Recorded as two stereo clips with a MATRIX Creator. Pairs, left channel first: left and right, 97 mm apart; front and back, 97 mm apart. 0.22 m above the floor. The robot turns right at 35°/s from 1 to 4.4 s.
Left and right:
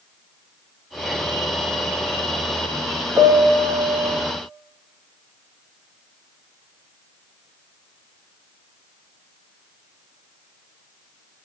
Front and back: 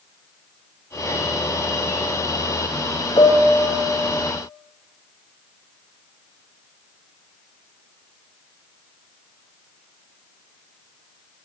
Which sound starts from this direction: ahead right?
A piano, at 3.2 s.